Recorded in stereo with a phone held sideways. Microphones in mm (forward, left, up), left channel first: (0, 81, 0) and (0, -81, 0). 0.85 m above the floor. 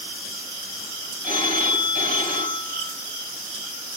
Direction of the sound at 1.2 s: 60° left (ahead or behind).